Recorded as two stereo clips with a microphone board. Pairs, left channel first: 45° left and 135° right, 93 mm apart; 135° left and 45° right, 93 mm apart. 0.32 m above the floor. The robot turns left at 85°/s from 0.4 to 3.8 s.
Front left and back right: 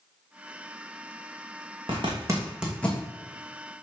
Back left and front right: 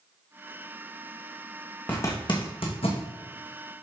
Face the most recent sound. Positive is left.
turn(degrees=40)